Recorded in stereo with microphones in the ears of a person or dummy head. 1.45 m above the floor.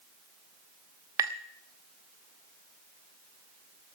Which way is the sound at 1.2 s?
15° right (ahead or behind).